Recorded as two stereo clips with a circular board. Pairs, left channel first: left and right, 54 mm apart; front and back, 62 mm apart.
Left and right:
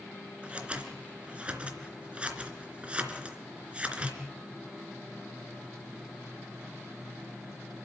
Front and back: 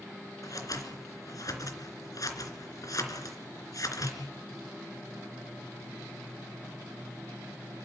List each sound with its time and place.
0.4 s scissors: 25° right, 3 m